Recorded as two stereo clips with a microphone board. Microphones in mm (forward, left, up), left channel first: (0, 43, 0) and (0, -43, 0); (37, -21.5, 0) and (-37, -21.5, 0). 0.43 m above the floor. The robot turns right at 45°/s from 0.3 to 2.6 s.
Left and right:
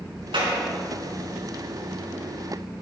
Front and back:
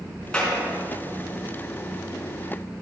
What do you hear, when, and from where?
0.3 s a clap: 80° right, 5 m; by 0.6 s 70° right, 5 m